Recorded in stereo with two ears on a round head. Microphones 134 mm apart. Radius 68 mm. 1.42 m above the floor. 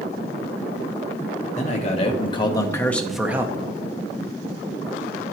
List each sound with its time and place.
1.6 s a man speaking: 45° left (ahead or behind), 1.1 m; by 3.6 s 25° right (ahead or behind), 0.6 m